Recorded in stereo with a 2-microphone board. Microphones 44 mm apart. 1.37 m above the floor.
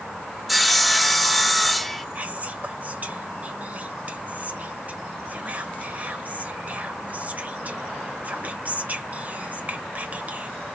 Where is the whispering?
35° right (ahead or behind), 1.4 m.